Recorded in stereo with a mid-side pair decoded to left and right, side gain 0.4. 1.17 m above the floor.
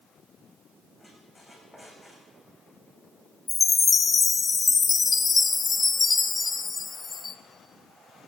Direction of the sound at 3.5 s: 35° left.